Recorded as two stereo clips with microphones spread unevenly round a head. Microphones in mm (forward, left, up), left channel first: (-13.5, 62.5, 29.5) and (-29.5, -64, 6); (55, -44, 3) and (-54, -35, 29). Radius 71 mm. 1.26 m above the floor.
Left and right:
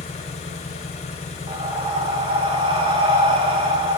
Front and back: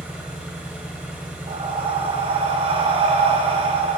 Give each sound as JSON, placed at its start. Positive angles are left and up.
{"t": 0.0, "sound": "an engine running", "azimuth_deg": 100, "distance_m": 1.7}
{"t": 1.5, "sound": "breathing", "azimuth_deg": -150, "distance_m": 2.0}